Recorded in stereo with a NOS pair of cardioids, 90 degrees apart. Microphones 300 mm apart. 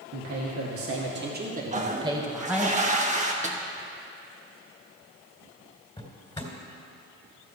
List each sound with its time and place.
0.1 s a man speaking: 65° right, 2 m; by 2.7 s straight ahead, 2.5 m
1.7 s a toilet flushing: 25° right, 1.5 m
3.4 s a snare drum: 25° right, 1.4 m
6.0 s a drawer: 15° left, 3 m